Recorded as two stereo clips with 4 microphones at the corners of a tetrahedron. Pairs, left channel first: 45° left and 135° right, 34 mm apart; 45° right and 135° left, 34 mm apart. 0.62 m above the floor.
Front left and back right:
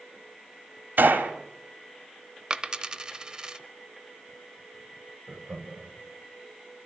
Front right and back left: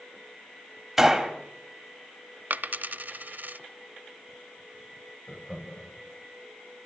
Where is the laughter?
100° right, 4 m.